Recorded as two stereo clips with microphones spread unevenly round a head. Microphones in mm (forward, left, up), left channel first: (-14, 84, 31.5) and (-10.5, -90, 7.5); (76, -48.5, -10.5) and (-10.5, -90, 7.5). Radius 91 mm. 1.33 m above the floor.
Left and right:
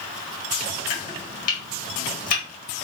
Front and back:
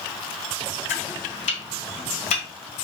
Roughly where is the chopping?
Ahead left.